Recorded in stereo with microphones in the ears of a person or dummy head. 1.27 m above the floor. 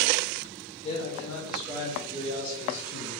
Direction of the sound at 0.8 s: 30° left (ahead or behind).